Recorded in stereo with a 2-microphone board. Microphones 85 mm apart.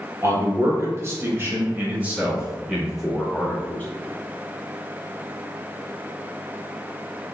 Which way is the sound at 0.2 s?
35° right (ahead or behind).